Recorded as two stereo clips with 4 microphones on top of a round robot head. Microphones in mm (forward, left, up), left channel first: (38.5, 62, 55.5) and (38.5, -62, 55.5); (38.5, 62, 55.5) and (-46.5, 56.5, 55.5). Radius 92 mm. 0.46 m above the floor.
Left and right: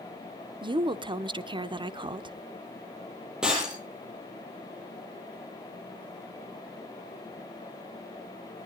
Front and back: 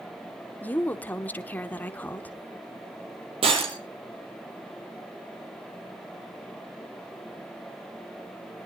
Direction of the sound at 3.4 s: 175° right.